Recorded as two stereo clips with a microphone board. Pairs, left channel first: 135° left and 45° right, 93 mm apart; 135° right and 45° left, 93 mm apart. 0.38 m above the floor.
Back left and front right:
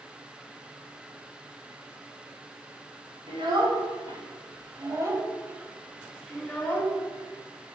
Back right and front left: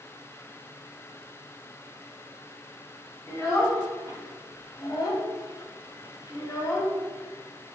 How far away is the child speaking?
About 2.5 m.